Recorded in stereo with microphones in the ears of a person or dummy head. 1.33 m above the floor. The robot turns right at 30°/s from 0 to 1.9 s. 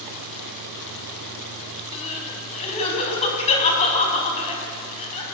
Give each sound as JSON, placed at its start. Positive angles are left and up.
{"t": 1.9, "sound": "crying", "side_deg": 35, "distance_m": 4.5}